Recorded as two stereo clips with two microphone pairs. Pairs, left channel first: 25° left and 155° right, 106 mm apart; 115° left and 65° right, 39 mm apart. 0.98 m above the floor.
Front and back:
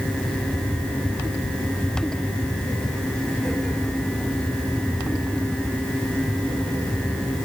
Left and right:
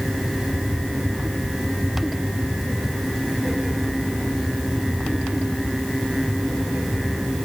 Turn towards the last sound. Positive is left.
No sound to turn to.